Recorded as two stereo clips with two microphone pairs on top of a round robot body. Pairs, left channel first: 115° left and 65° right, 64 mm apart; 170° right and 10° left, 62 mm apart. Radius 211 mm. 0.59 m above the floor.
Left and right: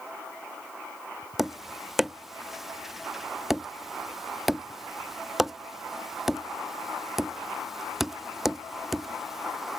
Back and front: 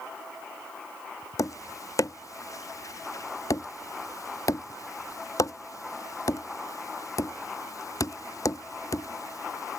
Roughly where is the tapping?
Behind right.